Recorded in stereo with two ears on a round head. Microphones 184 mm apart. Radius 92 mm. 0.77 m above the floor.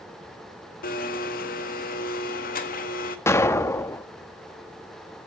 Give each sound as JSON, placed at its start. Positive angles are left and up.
{"t": 0.8, "sound": "a blender", "side_deg": 40, "distance_m": 1.7}
{"t": 3.3, "sound": "an explosion", "side_deg": 10, "distance_m": 1.1}